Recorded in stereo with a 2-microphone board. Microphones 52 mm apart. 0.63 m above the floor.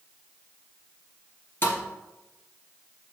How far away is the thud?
About 2 m.